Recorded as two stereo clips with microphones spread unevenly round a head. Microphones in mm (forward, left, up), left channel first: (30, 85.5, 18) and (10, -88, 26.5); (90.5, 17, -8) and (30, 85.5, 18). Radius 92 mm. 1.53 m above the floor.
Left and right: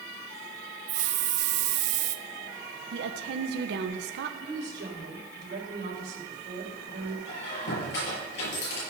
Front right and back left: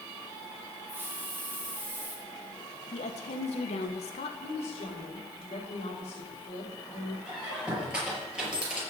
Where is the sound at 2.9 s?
70° right, 1.2 m.